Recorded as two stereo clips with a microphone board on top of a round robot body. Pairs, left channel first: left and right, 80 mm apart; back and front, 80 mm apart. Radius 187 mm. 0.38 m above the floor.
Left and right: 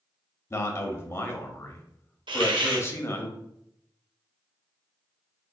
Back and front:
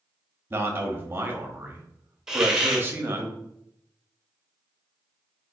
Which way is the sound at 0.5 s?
50° left.